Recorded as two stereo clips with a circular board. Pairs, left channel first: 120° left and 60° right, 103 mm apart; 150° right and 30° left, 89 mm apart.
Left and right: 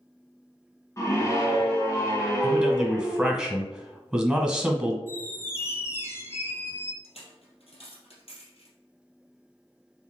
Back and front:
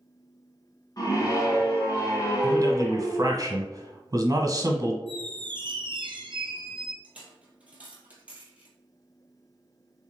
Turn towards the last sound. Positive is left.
turn(degrees=105)